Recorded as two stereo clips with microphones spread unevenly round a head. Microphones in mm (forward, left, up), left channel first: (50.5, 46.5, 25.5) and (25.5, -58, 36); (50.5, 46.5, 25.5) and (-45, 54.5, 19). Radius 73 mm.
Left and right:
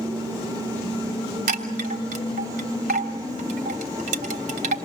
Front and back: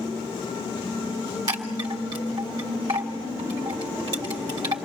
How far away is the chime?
About 3 m.